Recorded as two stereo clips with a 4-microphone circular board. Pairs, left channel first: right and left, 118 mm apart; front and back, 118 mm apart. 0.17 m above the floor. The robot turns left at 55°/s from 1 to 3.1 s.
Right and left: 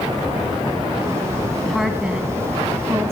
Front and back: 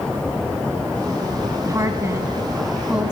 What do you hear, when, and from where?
1.6 s a woman speaking: 175° right, 1.2 m; by 3.1 s 105° left, 1.2 m